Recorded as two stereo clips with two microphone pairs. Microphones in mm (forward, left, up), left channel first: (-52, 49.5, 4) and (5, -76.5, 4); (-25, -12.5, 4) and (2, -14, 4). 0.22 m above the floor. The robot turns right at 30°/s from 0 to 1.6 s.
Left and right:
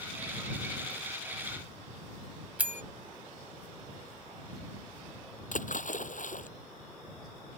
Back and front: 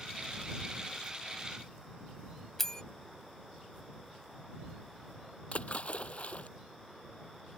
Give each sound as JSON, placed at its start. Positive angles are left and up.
{"t": 2.6, "sound": "a bell", "azimuth_deg": -130}
{"t": 5.5, "sound": "a splash", "azimuth_deg": 135}